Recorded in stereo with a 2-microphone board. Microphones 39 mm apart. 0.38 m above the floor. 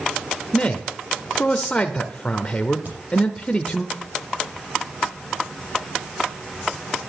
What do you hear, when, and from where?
0.5 s a man speaking: 25° left (ahead or behind), 0.8 m
2.9 s a crack: 50° right (ahead or behind), 7 m